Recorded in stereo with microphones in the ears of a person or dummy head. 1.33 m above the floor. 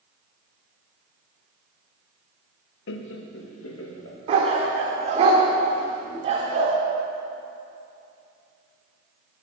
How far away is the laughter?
About 0.8 m.